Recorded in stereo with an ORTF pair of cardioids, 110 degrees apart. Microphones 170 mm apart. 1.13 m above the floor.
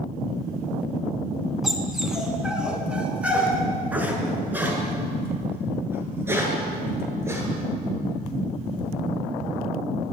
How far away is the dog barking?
About 4.5 m.